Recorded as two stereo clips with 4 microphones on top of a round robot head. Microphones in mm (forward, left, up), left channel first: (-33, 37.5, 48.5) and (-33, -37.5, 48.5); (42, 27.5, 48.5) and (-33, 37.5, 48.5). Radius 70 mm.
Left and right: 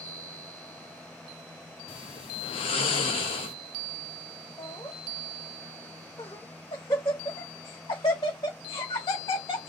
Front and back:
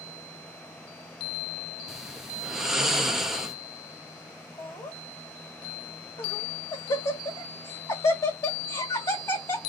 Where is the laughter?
30° left, 1.7 m.